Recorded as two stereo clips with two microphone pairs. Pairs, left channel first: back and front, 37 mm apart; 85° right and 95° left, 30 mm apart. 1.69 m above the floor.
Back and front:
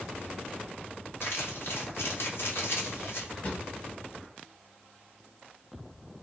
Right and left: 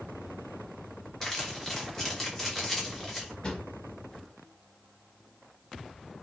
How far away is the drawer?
About 2.5 m.